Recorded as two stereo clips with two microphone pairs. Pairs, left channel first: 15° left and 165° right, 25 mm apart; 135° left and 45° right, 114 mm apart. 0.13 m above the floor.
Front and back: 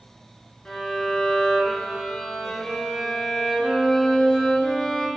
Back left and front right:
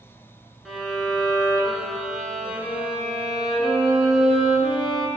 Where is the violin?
40° left, 0.5 m.